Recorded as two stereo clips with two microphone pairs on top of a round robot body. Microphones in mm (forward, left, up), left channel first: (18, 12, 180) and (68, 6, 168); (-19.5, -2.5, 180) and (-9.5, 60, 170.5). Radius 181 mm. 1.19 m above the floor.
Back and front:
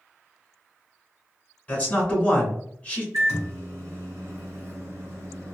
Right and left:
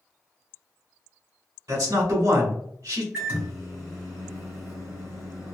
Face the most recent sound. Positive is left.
turn(degrees=15)